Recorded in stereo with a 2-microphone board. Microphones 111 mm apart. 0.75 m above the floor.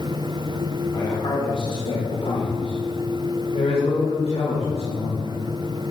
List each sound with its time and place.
0.9 s a man speaking: 40° left (ahead or behind), 2 m; by 5.4 s 80° left, 4 m